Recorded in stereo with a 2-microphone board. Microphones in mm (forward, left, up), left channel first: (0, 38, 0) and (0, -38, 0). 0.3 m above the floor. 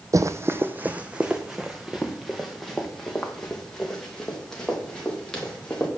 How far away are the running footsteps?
About 0.6 m.